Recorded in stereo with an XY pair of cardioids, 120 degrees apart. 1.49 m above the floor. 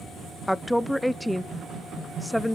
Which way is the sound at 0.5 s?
5° left.